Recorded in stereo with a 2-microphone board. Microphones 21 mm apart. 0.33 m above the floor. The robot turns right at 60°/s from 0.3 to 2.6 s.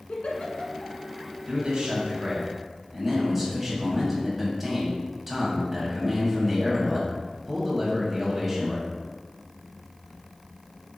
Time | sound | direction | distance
0.1 | a giggle | 80° left | 1.2 m
1.5 | a man speaking | 80° right | 2.5 m